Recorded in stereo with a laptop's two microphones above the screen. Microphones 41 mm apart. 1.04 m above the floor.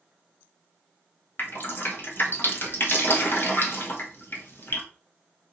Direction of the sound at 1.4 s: 55° left (ahead or behind).